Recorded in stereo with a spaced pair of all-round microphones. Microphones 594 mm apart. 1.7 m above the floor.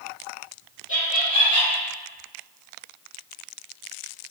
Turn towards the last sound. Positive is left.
turn(degrees=20)  # may be behind; listen again after turning